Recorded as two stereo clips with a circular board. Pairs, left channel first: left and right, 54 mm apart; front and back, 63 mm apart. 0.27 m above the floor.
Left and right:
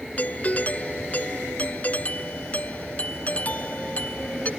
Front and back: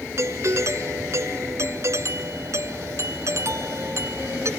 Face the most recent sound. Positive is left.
turn(degrees=150)